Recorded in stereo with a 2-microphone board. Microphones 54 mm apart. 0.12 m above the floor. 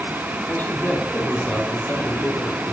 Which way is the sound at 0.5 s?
40° left (ahead or behind).